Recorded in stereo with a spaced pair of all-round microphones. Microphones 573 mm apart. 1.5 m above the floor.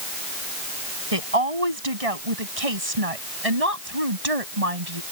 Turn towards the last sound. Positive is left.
turn(degrees=-85)